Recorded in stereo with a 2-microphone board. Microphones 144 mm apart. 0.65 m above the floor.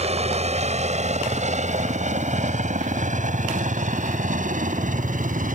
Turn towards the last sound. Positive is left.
turn(degrees=-65)  # may be behind; listen again after turning